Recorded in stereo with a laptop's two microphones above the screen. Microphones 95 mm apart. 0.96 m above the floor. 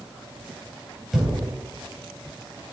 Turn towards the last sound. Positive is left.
turn(degrees=-5)  # may be behind; listen again after turning